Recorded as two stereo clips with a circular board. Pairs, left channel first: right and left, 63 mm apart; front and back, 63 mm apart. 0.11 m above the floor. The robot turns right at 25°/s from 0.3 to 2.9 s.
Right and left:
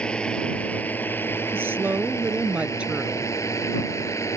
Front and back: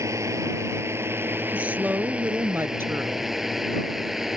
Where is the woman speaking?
120° left; by 3.3 s 155° left.